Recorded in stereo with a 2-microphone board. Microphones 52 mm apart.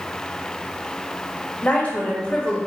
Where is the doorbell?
I don't hear a doorbell.